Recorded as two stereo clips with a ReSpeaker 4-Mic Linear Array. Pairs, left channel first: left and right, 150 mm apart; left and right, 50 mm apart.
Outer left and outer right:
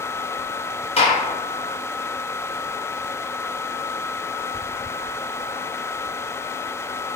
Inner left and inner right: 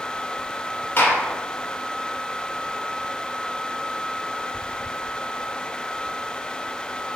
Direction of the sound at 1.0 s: 40° left (ahead or behind).